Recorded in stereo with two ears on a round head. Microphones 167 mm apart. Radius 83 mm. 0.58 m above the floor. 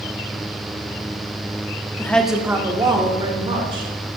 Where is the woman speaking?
15° left (ahead or behind), 0.6 m; by 3.9 s 30° right (ahead or behind), 2.0 m.